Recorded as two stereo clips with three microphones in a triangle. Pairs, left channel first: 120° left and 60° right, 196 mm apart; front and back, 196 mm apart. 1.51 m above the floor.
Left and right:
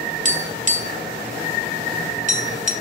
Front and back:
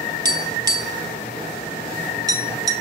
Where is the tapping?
110° right, 1.3 m.